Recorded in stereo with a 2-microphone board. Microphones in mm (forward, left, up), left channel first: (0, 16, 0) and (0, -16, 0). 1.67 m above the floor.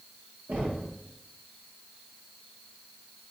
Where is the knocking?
70° right (ahead or behind), 1.7 m.